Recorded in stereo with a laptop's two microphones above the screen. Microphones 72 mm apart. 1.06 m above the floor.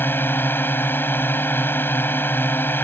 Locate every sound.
0.0 s a drone: 30° left (ahead or behind)